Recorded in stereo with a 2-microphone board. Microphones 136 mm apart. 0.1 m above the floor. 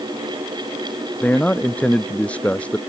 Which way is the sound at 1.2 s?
10° left (ahead or behind).